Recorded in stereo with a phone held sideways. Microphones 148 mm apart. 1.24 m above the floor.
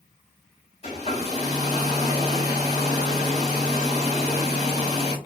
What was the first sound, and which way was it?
A hair dryer, 45° left (ahead or behind).